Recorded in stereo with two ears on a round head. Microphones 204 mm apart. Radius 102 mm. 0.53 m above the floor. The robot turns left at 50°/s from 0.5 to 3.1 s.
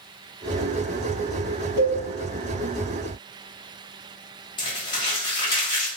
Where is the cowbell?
80° right, 1.2 m.